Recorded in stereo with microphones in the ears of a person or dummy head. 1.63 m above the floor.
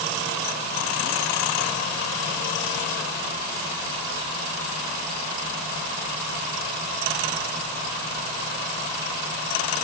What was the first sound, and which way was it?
Only background noise.